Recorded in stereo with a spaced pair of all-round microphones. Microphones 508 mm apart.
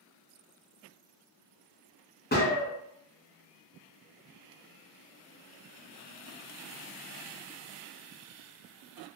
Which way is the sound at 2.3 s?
20° left (ahead or behind).